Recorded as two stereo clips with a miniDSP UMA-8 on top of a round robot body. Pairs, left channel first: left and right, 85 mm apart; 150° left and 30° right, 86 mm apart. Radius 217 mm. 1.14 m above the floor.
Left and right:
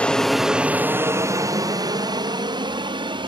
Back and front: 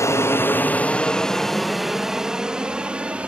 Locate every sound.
0.0 s an aircraft: 155° left; by 3.3 s 110° right